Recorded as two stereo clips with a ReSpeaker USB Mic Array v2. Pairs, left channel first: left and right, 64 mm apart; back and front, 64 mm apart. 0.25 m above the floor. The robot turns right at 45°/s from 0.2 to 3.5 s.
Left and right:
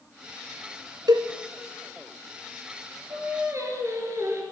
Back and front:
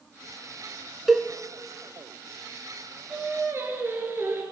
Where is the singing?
65° right, 2.5 m; by 4.4 s 50° right, 2.5 m.